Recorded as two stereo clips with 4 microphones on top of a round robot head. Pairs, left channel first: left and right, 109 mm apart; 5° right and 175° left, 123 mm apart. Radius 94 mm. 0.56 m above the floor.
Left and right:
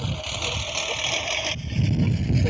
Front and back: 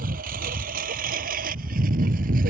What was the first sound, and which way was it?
A lawn mower, straight behind.